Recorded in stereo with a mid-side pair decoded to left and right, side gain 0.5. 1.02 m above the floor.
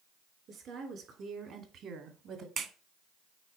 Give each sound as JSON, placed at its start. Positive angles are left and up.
{"t": 0.5, "sound": "a woman speaking", "azimuth_deg": -60, "distance_m": 3.0}
{"t": 2.6, "sound": "a clap", "azimuth_deg": -50, "distance_m": 1.3}